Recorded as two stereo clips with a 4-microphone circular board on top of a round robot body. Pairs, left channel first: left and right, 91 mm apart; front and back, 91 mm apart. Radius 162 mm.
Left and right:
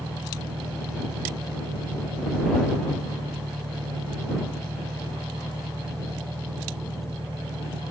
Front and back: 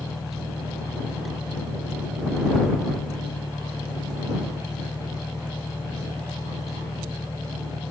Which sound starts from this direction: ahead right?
An engine running, at 0.0 s.